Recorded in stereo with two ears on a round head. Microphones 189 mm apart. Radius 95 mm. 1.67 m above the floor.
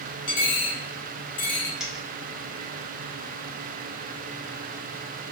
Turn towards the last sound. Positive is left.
turn(degrees=-5)  # may be behind; listen again after turning